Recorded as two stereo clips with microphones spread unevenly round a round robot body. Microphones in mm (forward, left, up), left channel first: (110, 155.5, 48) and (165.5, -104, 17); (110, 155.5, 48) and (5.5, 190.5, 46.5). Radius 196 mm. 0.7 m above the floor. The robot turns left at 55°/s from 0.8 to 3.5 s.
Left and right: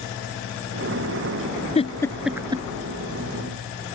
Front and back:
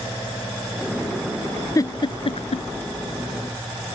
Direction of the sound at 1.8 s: 40° left.